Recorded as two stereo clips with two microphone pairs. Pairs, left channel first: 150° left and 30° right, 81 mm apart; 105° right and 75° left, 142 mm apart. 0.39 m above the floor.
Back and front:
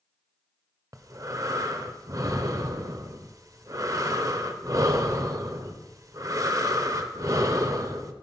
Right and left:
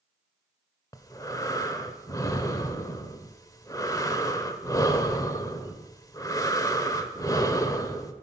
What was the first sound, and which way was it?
Breathing, 50° right.